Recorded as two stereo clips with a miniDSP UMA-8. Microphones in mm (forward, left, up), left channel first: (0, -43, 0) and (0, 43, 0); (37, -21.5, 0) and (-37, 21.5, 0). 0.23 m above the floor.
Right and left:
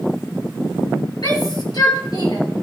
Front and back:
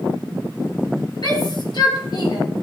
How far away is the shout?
About 5.5 m.